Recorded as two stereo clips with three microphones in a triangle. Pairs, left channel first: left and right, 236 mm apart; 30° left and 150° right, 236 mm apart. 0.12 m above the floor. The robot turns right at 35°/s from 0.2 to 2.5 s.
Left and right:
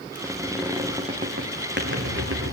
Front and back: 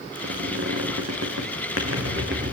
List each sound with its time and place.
0.1 s a squeak: 175° left, 4 m; by 2.5 s 105° right, 4 m